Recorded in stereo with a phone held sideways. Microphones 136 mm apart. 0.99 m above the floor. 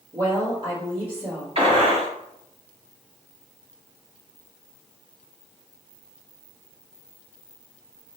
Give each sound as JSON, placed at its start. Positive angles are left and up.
{"t": 0.1, "sound": "a woman speaking", "side_deg": -40, "distance_m": 1.9}
{"t": 1.6, "sound": "a gunshot", "side_deg": -45, "distance_m": 2.0}